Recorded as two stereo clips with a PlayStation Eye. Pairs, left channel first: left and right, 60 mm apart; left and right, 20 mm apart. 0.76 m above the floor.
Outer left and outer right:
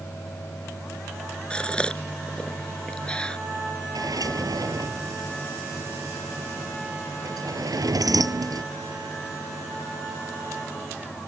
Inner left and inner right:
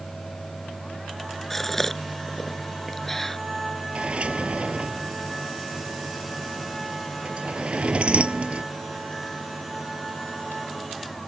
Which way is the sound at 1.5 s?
15° left (ahead or behind).